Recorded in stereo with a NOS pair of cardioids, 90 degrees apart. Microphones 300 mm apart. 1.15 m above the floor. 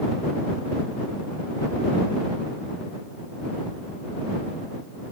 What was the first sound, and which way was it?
Only background noise.